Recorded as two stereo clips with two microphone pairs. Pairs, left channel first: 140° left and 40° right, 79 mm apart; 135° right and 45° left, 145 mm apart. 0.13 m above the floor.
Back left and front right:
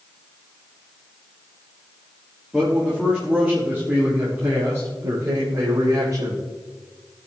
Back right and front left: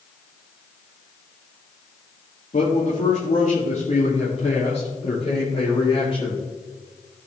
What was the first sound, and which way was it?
A man speaking, 130° right.